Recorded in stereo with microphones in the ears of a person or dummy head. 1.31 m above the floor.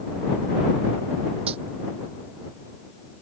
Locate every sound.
1.5 s a dropped coin: 35° right (ahead or behind)